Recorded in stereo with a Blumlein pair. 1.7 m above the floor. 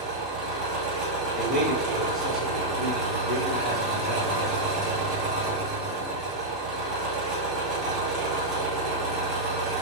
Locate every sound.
0.0 s an engine running: 5° right, 1.4 m
1.4 s a man speaking: straight ahead, 1.5 m